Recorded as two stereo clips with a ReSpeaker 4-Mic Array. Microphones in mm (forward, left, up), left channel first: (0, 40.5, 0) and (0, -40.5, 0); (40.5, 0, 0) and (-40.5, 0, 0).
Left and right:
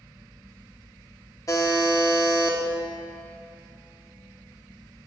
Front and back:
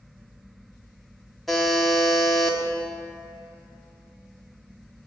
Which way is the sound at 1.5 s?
85° left.